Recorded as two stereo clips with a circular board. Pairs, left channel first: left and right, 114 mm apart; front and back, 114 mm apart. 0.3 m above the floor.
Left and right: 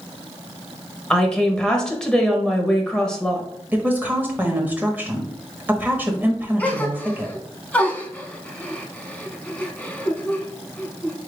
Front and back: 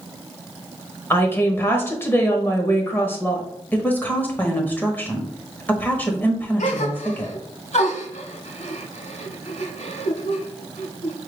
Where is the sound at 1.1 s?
20° left, 0.9 m.